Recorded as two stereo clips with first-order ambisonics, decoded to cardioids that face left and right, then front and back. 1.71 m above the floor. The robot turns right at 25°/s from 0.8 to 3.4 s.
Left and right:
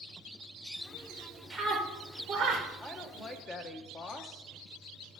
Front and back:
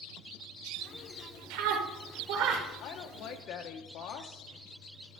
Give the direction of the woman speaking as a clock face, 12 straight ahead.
12 o'clock.